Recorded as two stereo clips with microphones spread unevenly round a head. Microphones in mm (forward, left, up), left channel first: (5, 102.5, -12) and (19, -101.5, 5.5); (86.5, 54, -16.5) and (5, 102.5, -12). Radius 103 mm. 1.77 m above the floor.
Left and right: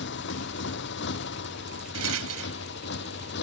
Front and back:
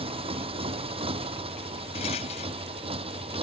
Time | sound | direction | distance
0.0 | a motorcycle | 135° left | ?
1.9 | a rattle | 75° right | ?